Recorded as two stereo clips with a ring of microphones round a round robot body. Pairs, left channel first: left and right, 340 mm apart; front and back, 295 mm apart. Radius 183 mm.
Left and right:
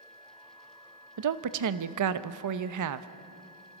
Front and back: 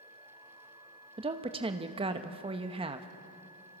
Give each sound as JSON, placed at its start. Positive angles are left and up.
{"t": 1.2, "sound": "a woman speaking", "azimuth_deg": -110, "distance_m": 0.9}